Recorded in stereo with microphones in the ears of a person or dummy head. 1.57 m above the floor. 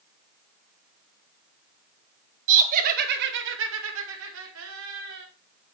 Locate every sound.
2.5 s laughter: 45° right (ahead or behind), 2.0 m; by 5.2 s 60° right (ahead or behind), 2.5 m